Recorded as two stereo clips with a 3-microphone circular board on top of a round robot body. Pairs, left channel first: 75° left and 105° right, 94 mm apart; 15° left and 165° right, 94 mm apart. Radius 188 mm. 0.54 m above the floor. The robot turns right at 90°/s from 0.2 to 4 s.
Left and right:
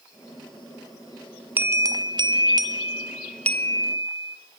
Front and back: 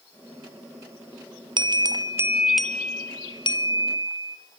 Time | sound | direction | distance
1.6 | a bell | 170° right | 0.9 m